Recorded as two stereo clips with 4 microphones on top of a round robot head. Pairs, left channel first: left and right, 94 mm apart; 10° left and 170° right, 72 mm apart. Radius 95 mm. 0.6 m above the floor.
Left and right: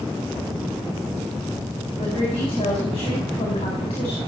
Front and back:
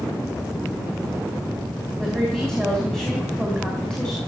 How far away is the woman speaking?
About 4.5 m.